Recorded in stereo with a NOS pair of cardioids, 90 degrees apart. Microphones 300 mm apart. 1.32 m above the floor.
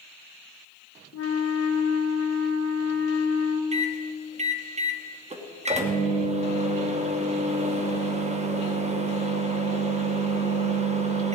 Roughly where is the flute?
Ahead left.